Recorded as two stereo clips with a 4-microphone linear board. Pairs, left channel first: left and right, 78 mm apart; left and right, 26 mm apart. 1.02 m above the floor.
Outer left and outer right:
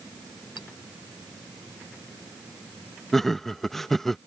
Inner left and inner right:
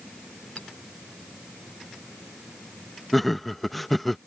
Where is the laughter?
5° left (ahead or behind).